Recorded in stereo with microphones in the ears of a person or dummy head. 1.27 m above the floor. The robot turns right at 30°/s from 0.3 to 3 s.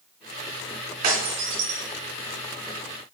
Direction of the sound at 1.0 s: 45° right (ahead or behind).